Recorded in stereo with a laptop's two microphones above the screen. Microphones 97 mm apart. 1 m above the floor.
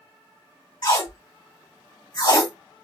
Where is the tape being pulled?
45° left (ahead or behind), 2.5 m.